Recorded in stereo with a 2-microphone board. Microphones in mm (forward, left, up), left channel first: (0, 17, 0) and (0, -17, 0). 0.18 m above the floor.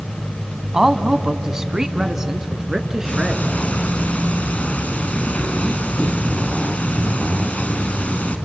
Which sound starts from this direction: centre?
A man speaking, at 0.7 s.